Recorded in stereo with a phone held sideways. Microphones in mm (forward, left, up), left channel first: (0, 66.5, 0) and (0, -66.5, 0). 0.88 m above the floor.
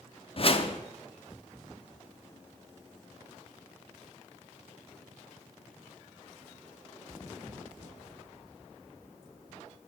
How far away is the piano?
I don't hear a piano.